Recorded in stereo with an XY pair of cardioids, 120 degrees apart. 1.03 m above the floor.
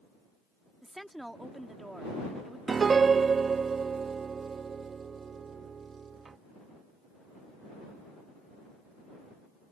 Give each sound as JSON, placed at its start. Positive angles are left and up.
{"t": 0.8, "sound": "a woman speaking", "azimuth_deg": -5}
{"t": 2.7, "sound": "a piano", "azimuth_deg": -35}